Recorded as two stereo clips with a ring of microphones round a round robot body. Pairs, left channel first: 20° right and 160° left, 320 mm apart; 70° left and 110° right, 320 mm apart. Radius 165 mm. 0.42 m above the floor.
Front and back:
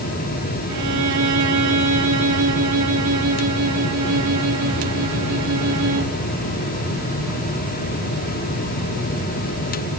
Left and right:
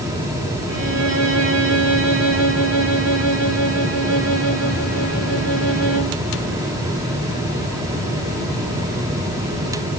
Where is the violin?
165° right, 4 m.